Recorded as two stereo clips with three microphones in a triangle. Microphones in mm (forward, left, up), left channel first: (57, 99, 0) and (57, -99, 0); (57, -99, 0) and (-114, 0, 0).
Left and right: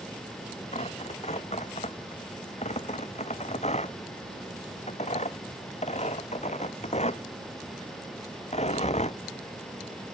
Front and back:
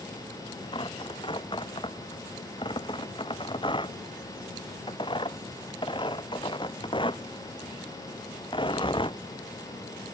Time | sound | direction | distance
0.7 | tearing paper | 35° left | ?